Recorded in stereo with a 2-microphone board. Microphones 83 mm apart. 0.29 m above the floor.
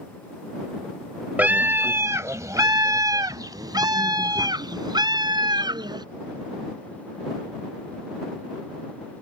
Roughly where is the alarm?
No alarm in this recording.